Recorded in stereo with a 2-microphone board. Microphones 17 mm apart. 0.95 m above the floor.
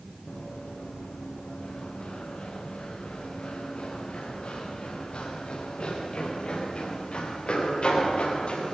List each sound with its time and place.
0.3 s running footsteps: 65° left (ahead or behind), 7.5 m